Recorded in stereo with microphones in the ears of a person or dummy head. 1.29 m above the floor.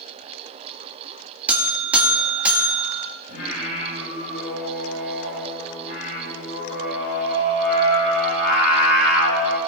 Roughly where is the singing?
Left.